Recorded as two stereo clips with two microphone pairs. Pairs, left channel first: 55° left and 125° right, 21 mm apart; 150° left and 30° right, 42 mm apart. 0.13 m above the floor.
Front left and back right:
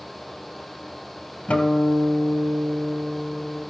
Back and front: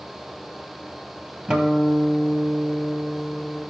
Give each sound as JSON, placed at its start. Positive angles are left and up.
{"t": 1.5, "sound": "a guitar", "azimuth_deg": 40, "distance_m": 1.4}